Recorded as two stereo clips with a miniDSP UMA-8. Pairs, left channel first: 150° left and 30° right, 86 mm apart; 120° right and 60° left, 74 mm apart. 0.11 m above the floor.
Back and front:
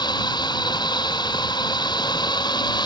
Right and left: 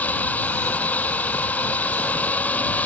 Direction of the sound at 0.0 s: 170° left.